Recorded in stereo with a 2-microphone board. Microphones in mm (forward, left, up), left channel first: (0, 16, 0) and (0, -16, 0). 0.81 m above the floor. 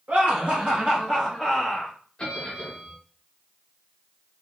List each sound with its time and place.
0.1 s laughter: 45° right (ahead or behind), 1.4 m; by 1.9 s 10° left (ahead or behind), 1.1 m
2.2 s a bell: 30° left (ahead or behind), 1.0 m